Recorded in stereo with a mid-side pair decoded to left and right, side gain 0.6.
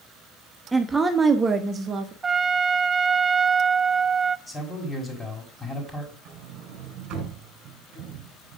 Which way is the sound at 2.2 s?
20° right.